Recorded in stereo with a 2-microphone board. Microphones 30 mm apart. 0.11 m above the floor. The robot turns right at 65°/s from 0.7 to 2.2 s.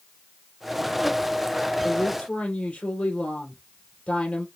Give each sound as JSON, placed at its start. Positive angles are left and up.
{"t": 1.8, "sound": "a woman speaking", "side_deg": 60, "distance_m": 2.5}